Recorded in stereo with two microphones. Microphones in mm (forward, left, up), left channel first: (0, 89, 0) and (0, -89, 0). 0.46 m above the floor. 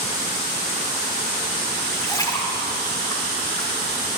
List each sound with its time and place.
1.9 s a splash: 20° left (ahead or behind), 1.5 m